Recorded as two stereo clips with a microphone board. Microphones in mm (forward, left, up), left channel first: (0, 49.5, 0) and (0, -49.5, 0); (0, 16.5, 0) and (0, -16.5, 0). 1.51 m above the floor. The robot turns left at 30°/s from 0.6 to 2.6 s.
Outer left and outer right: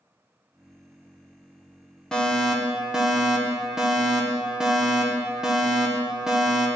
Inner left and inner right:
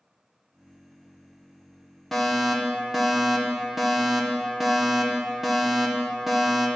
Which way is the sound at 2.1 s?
5° left (ahead or behind).